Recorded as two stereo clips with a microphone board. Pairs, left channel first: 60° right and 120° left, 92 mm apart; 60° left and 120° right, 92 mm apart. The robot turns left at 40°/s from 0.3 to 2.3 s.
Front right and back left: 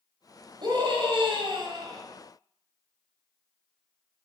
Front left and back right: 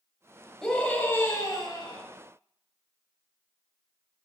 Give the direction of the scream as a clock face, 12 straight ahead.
7 o'clock.